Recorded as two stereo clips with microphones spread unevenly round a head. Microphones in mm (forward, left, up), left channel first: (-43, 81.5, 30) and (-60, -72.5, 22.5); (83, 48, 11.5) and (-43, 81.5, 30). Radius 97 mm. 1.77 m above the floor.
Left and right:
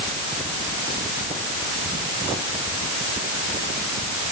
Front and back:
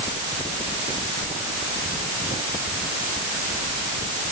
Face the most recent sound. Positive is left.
No sound to turn to.